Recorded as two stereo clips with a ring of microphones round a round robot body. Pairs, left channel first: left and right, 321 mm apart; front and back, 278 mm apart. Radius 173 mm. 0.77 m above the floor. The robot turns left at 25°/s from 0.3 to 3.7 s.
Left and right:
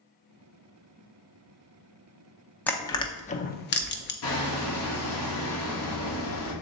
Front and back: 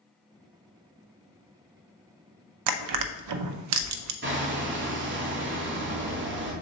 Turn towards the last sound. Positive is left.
turn(degrees=135)